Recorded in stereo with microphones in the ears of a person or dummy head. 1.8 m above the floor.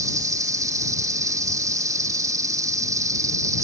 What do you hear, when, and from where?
0.0 s an insect: 20° right (ahead or behind)